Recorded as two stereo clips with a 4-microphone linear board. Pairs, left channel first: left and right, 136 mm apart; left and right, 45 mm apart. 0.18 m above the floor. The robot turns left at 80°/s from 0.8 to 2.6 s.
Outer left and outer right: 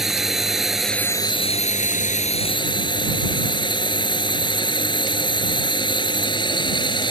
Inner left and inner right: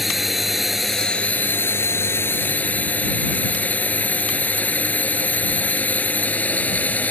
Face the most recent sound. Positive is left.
turn(degrees=40)